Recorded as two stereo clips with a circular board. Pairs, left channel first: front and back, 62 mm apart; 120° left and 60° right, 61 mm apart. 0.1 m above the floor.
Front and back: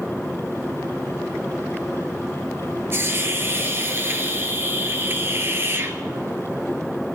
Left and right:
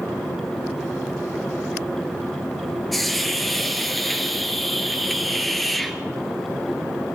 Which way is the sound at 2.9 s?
155° right.